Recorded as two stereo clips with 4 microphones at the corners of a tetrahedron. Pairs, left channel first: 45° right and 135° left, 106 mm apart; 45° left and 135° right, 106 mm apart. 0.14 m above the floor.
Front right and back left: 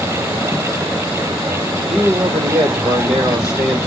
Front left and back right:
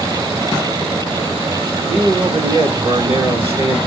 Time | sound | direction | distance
1.9 | a man speaking | 135° right | 2.5 m